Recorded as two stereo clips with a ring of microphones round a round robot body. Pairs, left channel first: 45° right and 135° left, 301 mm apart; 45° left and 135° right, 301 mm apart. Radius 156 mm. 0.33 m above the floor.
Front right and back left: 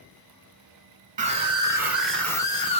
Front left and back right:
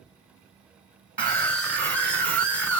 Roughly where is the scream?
Behind left.